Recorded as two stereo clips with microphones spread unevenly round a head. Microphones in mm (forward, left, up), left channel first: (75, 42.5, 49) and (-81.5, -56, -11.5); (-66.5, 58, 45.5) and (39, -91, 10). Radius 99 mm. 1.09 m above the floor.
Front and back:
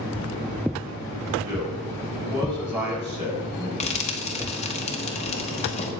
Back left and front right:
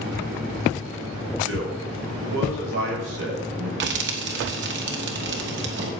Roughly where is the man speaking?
Right.